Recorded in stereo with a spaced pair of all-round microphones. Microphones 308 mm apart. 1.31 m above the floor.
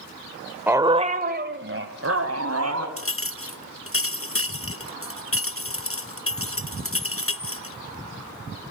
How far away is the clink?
About 0.8 m.